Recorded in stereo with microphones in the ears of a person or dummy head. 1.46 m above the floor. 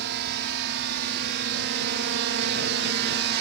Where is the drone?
60° right (ahead or behind); by 3.4 s 55° right (ahead or behind).